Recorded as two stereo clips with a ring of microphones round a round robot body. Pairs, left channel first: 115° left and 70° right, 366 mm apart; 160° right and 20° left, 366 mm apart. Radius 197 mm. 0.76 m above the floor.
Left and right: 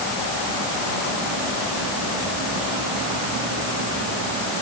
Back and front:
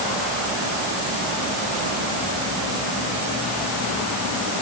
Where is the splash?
I don't hear a splash.